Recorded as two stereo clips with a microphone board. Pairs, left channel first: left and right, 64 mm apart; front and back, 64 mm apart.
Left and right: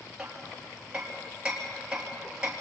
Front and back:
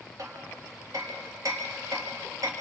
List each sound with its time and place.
0.2 s hammering: 165° right, 3.5 m